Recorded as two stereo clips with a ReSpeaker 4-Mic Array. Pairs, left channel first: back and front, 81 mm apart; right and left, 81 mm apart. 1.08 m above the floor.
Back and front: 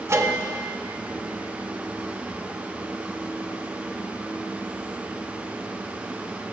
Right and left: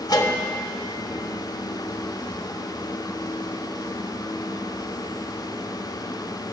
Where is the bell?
55° right, 1.2 m.